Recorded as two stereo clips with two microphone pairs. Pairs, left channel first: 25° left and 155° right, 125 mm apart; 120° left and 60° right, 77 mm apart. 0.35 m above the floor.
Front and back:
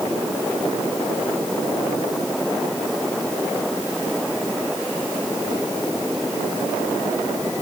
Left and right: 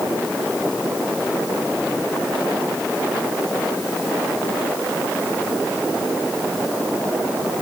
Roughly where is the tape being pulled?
I don't hear tape being pulled.